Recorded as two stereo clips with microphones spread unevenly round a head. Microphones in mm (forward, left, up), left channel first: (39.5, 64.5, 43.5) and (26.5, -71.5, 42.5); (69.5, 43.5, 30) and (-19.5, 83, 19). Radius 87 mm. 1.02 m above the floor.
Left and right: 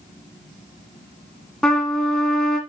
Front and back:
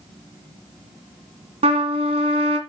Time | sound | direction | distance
1.6 | a trumpet | 170° left | 1.6 m